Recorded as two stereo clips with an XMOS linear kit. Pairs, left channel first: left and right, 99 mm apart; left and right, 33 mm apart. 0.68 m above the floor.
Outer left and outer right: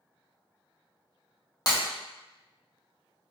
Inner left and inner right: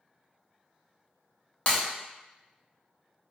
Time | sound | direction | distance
1.7 | breaking glass | 40° left (ahead or behind) | 0.9 m